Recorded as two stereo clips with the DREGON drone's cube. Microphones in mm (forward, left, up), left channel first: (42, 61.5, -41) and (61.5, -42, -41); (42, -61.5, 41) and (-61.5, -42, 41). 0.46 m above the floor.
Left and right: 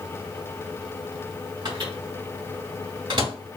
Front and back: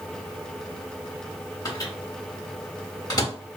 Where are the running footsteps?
I don't hear running footsteps.